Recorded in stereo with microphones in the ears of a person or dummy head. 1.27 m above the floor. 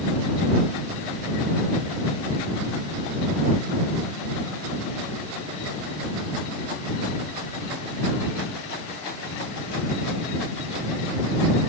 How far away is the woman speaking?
I don't hear a woman speaking.